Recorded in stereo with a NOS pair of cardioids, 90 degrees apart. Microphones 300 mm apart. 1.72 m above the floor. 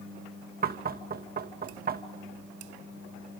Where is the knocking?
30° right, 2.5 m.